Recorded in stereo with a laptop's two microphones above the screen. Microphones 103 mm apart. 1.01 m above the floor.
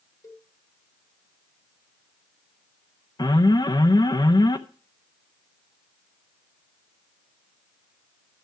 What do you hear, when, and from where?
0.2 s a cowbell: 30° left (ahead or behind), 1.2 m
3.2 s an alarm: 40° left (ahead or behind), 0.9 m